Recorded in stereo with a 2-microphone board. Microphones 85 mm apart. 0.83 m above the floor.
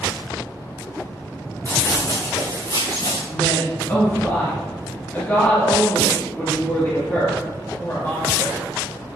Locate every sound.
1.6 s running footsteps: 40° left (ahead or behind), 3 m; by 3.2 s 60° left (ahead or behind), 3.5 m
3.3 s a woman speaking: 25° left (ahead or behind), 1.6 m